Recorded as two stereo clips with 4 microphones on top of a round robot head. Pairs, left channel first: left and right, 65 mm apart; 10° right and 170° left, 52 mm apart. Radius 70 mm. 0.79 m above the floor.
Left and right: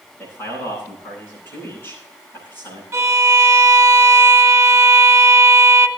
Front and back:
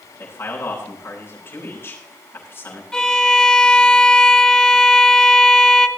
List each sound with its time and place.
0.2 s a man speaking: 30° left, 9 m
2.9 s a violin: 80° right, 1.3 m